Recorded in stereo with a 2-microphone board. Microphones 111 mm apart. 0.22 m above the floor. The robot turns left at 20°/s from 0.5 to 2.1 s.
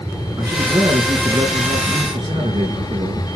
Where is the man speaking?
35° right, 4 m; by 3.3 s 65° right, 4 m.